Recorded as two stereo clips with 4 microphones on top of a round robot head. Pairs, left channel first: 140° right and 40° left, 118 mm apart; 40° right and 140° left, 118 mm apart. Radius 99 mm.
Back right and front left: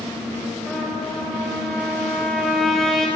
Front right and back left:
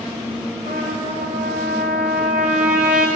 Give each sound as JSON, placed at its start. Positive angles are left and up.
{"t": 0.7, "sound": "a trumpet", "azimuth_deg": 135, "distance_m": 0.9}